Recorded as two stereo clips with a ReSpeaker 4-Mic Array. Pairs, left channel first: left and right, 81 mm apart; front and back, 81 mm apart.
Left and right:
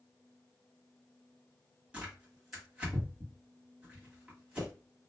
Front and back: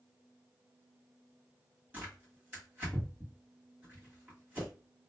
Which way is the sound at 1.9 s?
145° right.